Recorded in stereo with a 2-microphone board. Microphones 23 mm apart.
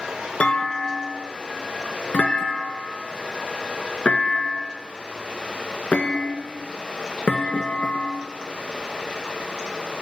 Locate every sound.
0.4 s a clunk: 65° left (ahead or behind), 1.5 m